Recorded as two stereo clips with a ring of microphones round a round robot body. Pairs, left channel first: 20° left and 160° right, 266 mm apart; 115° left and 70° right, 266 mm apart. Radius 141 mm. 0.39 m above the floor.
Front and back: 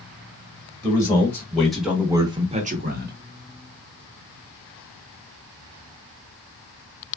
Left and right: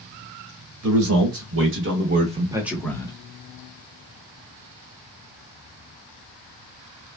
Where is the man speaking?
55° right, 1.6 m; by 3.1 s 175° left, 1.0 m.